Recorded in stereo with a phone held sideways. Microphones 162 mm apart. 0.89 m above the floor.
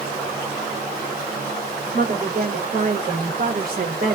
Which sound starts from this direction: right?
A woman speaking, at 1.9 s.